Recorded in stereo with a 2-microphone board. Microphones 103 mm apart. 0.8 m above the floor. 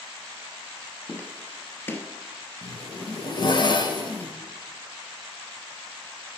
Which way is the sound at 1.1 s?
20° left (ahead or behind).